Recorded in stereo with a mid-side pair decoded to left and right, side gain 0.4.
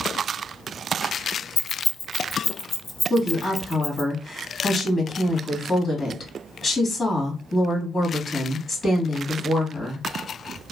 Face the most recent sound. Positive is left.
turn(degrees=50)